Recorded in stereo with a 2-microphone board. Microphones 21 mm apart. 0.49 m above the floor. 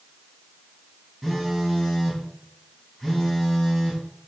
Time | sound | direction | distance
1.2 | a phone buzzing | centre (ahead or behind) | 4 m